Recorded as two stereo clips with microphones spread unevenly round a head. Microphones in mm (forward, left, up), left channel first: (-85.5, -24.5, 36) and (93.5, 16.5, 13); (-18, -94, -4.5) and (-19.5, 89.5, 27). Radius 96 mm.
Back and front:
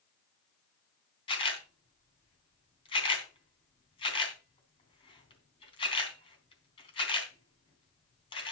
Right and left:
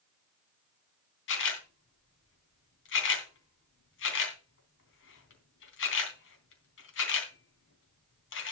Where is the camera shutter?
110° right, 3 m.